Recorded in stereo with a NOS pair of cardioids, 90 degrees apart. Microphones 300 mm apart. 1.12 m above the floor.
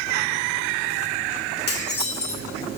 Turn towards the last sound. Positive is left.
turn(degrees=35)